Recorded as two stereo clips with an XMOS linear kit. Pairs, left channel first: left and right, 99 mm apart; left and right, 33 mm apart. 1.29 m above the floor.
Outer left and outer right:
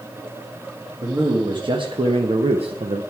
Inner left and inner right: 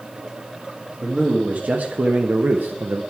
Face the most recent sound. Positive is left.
turn(degrees=-75)  # may be behind; listen again after turning